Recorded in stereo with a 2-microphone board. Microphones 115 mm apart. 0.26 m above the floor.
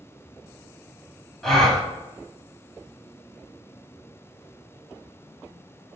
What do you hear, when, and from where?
1.4 s a gasp: centre (ahead or behind), 0.7 m